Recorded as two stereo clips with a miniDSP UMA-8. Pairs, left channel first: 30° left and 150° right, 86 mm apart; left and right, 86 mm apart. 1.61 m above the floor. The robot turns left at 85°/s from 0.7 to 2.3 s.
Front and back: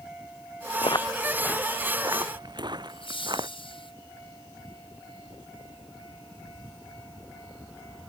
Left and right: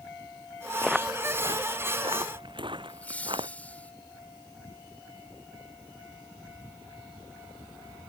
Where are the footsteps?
5° left; by 3.5 s 115° right.